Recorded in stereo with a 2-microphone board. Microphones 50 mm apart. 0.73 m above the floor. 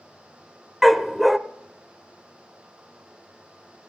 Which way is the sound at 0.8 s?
Centre (ahead or behind).